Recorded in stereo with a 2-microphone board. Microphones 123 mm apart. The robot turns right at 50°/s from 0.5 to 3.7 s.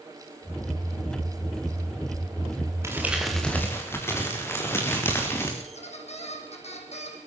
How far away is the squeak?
About 5 m.